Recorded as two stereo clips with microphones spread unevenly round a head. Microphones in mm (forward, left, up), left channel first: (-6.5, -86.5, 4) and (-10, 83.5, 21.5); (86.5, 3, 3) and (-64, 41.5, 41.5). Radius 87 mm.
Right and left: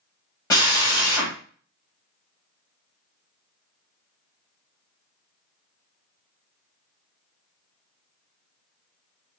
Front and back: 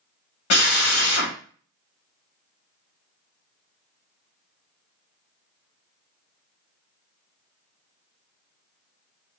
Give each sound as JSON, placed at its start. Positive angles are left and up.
{"t": 0.5, "sound": "a drill", "azimuth_deg": -15, "distance_m": 2.5}